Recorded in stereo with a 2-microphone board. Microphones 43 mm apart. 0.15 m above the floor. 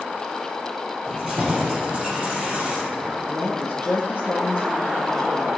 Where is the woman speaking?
50° left (ahead or behind), 1.6 m.